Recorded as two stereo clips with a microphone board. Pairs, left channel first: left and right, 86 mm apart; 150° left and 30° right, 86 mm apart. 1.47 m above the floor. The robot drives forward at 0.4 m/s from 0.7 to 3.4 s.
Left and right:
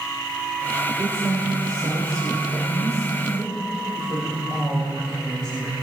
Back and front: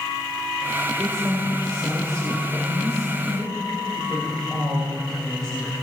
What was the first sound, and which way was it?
A woman speaking, 115° right.